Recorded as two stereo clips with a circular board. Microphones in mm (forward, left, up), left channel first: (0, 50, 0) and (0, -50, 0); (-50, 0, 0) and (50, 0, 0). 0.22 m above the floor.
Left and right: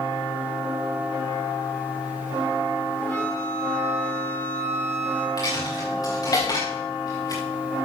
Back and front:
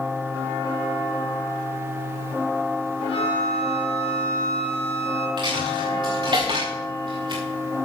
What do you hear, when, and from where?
3.0 s a flute: 155° left, 4.5 m
5.4 s a dropped coin: 40° left, 4 m